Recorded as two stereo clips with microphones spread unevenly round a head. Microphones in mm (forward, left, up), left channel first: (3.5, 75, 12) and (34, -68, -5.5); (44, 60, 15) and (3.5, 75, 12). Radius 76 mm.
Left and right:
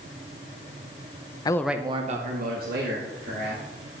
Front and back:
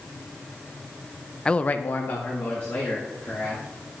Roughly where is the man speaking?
Ahead left.